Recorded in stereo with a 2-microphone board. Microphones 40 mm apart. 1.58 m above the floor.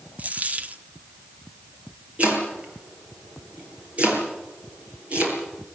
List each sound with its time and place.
0.2 s a dropped coin: 35° right (ahead or behind), 1.3 m
2.2 s chopping: 35° right (ahead or behind), 7 m